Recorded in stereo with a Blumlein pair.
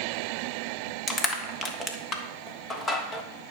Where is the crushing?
20° left, 1.4 m.